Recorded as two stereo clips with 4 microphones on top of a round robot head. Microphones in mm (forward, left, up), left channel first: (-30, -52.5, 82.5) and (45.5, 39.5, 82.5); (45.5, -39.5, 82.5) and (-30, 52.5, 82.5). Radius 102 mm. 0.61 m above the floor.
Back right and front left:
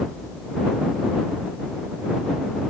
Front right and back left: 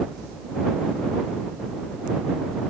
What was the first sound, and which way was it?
Only background noise.